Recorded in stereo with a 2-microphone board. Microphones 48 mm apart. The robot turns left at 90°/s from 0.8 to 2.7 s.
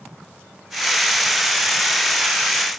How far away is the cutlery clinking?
No cutlery clinking in this recording.